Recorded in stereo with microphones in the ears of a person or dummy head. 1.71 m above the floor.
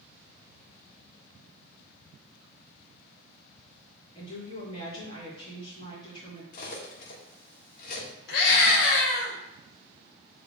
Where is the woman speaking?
25° left (ahead or behind), 3.5 m.